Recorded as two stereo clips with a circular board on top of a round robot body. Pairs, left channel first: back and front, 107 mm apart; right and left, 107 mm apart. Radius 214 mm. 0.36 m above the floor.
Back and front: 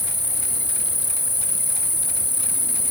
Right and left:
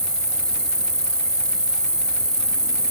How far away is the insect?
About 1.2 m.